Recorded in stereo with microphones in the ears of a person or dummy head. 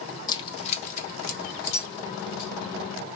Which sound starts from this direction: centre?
Keys jangling, at 0.3 s.